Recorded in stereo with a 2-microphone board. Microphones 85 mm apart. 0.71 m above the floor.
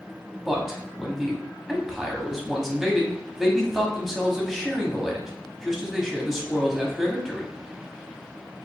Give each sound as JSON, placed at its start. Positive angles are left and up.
{"t": 0.5, "sound": "a man speaking", "side_deg": -5, "distance_m": 1.0}